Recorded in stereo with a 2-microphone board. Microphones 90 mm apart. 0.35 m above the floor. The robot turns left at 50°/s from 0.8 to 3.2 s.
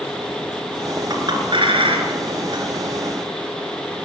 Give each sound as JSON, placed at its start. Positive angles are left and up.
{"t": 1.1, "sound": "a clink", "side_deg": -50, "distance_m": 3.0}